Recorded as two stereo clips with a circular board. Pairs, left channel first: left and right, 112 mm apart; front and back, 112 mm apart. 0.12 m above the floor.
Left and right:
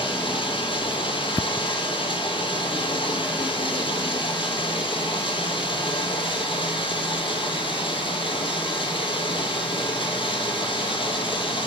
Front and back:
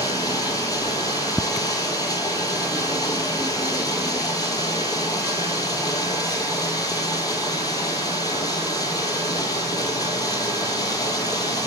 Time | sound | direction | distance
0.0 | running water | 55° left | 0.7 m